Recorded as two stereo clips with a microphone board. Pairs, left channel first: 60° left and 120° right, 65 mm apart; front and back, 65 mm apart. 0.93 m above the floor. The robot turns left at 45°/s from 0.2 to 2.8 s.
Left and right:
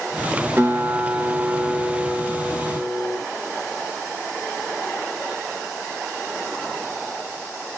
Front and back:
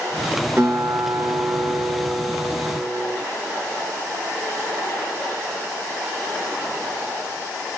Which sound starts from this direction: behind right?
A guitar, at 0.6 s.